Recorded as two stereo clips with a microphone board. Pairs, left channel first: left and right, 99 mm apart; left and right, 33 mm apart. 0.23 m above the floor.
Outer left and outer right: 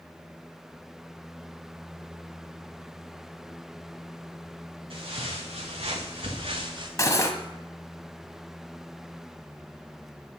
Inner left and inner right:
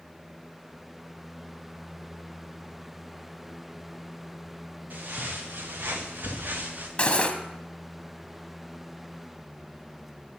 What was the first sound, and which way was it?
Footsteps, 65° right (ahead or behind).